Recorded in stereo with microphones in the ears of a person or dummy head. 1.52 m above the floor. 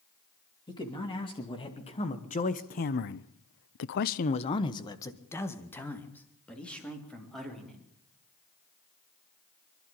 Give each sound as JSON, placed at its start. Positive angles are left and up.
{"t": 0.7, "sound": "a man speaking", "side_deg": 20, "distance_m": 3.0}